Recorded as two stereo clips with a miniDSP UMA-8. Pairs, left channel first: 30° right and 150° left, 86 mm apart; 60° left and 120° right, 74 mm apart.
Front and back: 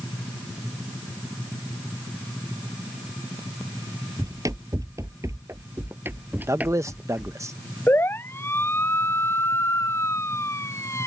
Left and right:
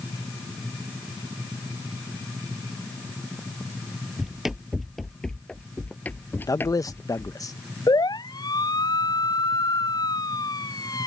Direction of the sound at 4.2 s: 160° left.